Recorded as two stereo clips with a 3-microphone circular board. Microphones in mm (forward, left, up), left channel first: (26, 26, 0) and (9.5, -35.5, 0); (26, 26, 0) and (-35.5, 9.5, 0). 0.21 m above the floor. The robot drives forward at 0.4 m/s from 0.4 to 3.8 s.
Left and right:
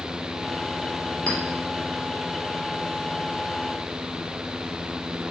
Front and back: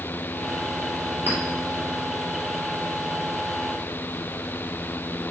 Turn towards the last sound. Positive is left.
turn(degrees=150)